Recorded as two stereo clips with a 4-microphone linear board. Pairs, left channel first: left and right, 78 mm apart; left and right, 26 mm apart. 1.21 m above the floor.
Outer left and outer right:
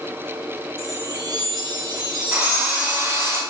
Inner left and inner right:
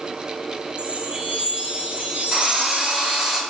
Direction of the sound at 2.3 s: 30° right (ahead or behind).